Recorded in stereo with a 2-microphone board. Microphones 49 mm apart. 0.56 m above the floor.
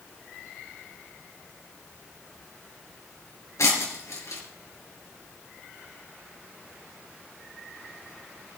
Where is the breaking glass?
75° left (ahead or behind), 4 m.